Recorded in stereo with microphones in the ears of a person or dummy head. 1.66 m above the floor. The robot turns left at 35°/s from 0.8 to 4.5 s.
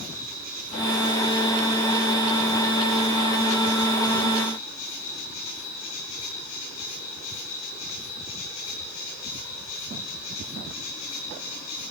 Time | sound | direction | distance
0.0 | an insect | 135° right | 10 m